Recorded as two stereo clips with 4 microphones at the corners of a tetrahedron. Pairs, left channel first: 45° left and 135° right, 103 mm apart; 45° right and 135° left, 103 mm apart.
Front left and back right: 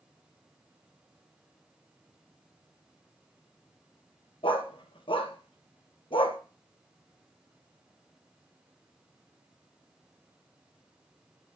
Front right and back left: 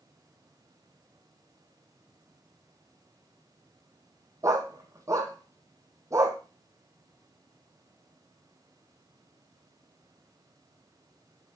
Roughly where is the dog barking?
Left.